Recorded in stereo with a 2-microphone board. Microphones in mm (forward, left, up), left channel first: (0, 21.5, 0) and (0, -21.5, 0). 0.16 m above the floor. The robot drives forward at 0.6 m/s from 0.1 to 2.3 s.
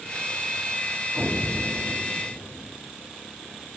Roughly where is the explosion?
Right.